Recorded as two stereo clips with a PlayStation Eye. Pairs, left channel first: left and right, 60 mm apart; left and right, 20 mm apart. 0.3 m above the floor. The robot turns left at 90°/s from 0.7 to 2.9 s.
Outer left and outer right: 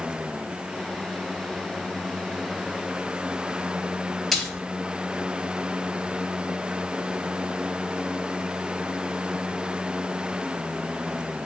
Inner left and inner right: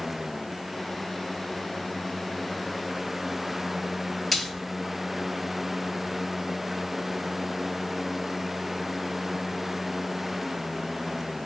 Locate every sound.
4.3 s a splash: centre (ahead or behind), 0.7 m